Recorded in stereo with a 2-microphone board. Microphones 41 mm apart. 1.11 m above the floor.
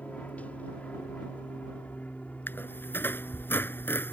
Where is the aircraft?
35° left (ahead or behind).